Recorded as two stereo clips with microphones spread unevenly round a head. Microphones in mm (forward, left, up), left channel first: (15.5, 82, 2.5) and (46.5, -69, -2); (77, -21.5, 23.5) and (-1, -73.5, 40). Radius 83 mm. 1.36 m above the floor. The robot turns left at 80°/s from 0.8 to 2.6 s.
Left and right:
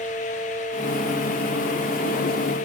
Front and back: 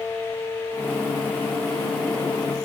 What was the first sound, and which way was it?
Only background noise.